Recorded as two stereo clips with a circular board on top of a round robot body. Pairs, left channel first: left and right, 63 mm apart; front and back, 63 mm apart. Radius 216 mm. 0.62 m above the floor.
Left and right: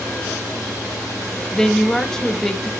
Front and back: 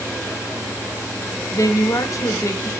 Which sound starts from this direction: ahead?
A woman speaking, at 1.5 s.